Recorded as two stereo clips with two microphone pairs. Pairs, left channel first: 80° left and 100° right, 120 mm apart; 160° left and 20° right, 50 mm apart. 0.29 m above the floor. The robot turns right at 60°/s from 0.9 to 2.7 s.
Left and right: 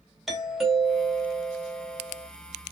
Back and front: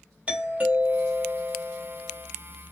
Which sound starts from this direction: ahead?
A doorbell, at 0.3 s.